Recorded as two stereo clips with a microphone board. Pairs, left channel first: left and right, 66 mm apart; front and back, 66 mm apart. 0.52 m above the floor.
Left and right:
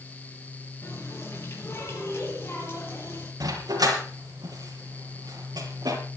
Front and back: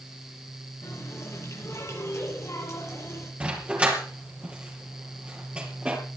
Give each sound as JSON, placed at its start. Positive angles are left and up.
{"t": 0.8, "sound": "a running tap", "azimuth_deg": 40, "distance_m": 9.0}
{"t": 3.4, "sound": "a dog barking", "azimuth_deg": -110, "distance_m": 4.5}